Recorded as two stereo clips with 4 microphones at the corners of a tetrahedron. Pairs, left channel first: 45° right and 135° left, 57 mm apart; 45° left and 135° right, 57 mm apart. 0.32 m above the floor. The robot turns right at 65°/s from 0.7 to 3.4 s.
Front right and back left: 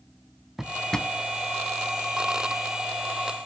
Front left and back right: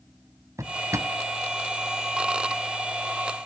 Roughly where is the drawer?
Behind right.